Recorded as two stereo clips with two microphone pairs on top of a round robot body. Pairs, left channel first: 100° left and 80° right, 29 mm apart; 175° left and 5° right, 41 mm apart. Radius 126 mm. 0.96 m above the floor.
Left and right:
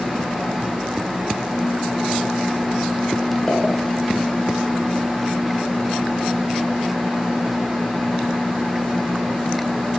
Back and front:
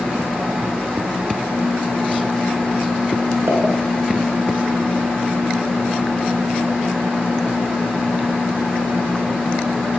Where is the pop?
25° left, 4 m.